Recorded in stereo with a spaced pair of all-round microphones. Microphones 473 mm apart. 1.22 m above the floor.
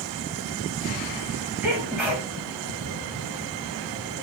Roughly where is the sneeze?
Centre.